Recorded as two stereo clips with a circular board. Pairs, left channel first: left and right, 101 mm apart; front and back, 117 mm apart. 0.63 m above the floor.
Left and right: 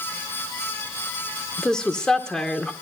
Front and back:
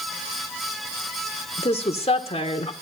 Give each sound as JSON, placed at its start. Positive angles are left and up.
{"t": 1.6, "sound": "a woman speaking", "azimuth_deg": 10, "distance_m": 1.9}